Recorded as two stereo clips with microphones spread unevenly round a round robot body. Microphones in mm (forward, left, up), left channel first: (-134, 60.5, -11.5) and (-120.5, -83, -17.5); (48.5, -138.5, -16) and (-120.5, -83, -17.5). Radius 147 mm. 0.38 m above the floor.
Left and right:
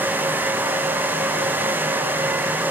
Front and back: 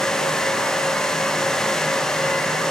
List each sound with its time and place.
Only background noise.